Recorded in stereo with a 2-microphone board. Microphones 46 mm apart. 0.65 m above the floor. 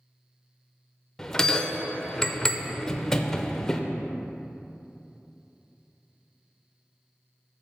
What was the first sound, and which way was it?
A bell, 10° left (ahead or behind).